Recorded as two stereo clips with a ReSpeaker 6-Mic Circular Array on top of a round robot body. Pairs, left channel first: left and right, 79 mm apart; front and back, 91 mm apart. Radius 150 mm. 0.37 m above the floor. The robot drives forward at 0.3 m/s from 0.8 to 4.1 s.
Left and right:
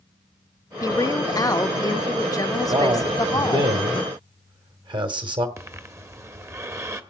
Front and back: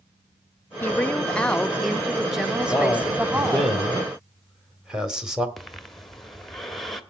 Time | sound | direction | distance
0.8 | a woman speaking | 65° left | 1.2 m
2.7 | a man speaking | 85° right | 2 m
5.6 | breathing | 85° right | 1.6 m